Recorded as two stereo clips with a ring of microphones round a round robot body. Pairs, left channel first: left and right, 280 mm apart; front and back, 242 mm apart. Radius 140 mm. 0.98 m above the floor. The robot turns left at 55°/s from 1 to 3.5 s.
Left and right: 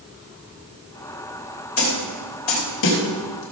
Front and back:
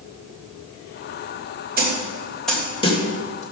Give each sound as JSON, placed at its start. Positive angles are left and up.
{"t": 1.8, "sound": "a snare drum", "azimuth_deg": 130, "distance_m": 3.0}